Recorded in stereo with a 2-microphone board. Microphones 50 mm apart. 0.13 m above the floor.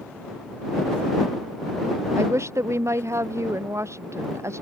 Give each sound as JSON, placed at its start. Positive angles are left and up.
{"t": 2.1, "sound": "a woman speaking", "side_deg": -65}